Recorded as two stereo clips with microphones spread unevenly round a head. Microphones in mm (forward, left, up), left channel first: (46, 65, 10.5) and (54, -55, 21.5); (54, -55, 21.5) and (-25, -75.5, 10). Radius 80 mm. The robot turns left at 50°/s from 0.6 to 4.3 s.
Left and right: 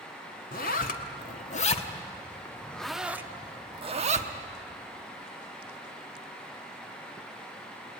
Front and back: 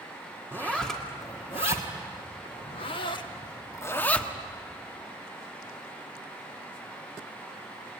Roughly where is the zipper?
Behind left.